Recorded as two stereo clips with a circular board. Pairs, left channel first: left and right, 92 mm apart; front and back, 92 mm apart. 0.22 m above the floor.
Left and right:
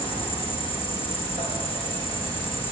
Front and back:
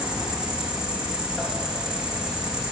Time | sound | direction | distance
0.0 | an insect | 100° left | 4 m